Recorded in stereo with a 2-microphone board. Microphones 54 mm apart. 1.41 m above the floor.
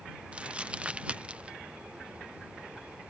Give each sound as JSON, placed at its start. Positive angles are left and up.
{"t": 0.3, "sound": "crumpling", "side_deg": -20}